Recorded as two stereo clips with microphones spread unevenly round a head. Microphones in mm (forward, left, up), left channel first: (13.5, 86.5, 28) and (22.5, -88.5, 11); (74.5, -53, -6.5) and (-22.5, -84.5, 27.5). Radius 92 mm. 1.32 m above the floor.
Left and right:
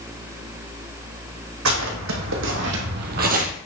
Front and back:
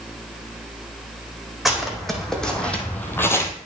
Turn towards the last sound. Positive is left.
turn(degrees=-55)